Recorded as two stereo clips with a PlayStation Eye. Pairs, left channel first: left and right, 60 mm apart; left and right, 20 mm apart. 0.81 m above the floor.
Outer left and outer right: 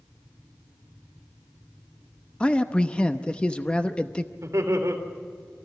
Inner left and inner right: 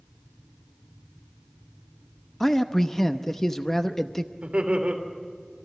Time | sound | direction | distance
2.4 | a man speaking | 20° left (ahead or behind) | 0.8 m
4.4 | laughter | 60° right (ahead or behind) | 3.5 m